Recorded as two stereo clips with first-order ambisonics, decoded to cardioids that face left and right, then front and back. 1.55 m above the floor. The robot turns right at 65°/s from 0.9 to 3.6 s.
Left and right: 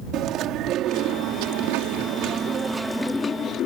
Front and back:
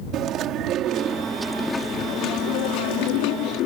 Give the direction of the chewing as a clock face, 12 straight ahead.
4 o'clock.